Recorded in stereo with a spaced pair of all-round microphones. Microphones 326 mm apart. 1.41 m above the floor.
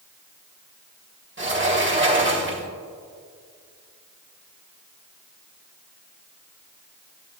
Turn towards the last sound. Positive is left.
turn(degrees=-35)  # may be behind; listen again after turning